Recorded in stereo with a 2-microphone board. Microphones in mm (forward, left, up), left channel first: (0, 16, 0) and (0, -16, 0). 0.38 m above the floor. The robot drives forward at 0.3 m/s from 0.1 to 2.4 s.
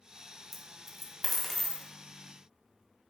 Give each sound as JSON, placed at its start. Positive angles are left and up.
{"t": 0.5, "sound": "a dropped coin", "side_deg": 0, "distance_m": 1.1}